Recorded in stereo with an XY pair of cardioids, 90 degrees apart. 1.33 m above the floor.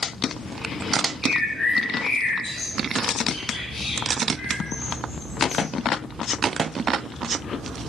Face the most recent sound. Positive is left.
turn(degrees=55)